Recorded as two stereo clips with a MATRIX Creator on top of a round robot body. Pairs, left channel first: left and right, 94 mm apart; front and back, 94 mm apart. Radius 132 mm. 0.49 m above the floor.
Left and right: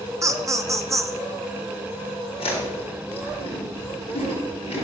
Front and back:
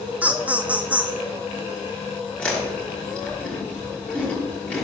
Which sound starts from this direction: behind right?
Laughter, at 0.2 s.